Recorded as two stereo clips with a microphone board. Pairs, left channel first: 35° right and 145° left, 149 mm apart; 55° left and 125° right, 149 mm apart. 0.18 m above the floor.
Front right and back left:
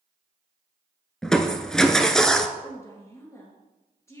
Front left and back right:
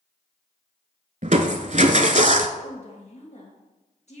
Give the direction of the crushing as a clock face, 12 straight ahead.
4 o'clock.